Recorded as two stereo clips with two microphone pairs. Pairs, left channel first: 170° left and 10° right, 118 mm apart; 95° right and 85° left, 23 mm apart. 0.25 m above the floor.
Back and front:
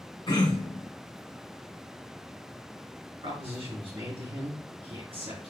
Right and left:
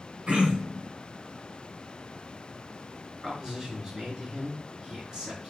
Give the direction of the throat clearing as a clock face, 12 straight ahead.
8 o'clock.